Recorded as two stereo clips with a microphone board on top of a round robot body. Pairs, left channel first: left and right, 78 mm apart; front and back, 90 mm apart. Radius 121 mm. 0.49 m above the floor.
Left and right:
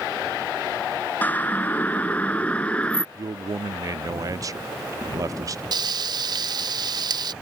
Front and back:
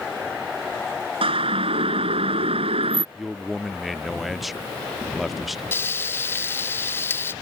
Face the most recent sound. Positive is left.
turn(degrees=-65)